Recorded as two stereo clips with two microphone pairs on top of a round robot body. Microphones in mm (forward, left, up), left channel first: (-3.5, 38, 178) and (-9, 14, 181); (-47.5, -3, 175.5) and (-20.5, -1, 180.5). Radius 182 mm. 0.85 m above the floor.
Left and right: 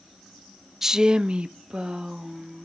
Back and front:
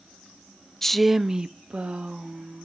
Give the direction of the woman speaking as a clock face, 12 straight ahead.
6 o'clock.